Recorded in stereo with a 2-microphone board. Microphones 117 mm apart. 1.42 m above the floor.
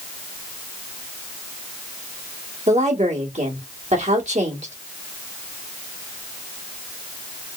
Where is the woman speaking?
80° right, 1.8 m.